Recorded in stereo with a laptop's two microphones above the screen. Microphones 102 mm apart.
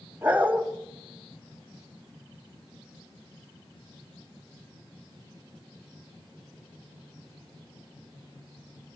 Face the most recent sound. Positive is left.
turn(degrees=-20)  # may be behind; listen again after turning